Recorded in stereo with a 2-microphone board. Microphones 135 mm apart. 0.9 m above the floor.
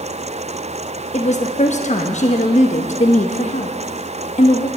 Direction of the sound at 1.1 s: 60° left (ahead or behind).